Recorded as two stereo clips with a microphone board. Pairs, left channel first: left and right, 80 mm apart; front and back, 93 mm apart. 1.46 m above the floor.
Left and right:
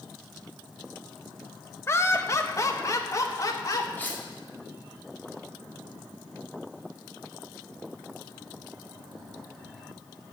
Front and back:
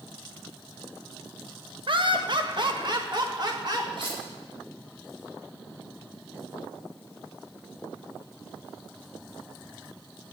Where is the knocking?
I don't hear knocking.